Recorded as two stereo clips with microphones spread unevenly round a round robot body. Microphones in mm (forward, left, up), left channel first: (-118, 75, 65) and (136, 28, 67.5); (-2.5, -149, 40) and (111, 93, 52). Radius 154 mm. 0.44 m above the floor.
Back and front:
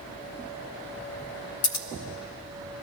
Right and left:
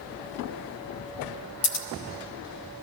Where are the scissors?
165° right, 0.7 m.